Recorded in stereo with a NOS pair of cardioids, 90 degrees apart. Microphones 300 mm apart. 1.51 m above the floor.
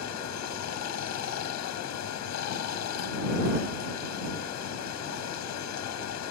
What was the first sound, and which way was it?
Running water, 70° left.